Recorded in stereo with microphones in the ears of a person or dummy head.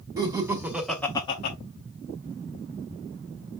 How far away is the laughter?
About 1.1 m.